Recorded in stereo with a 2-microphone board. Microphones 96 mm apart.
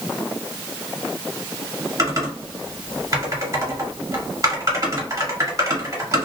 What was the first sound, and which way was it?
Typing on a keyboard, 35° right (ahead or behind).